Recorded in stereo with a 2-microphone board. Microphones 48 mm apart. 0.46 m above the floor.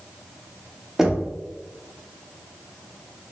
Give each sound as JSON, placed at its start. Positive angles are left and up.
{"t": 1.0, "sound": "knocking", "side_deg": -10, "distance_m": 0.6}